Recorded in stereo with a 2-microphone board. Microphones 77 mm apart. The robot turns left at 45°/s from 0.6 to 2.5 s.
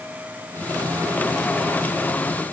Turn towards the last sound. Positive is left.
No sound to turn to.